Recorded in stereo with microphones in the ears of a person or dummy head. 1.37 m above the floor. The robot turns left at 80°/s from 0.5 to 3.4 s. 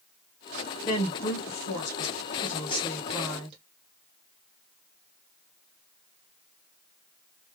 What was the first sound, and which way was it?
A woman speaking, 170° left.